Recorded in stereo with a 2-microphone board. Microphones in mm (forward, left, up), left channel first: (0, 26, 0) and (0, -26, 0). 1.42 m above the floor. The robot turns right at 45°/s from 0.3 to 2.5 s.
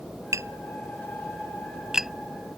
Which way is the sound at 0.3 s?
70° right (ahead or behind).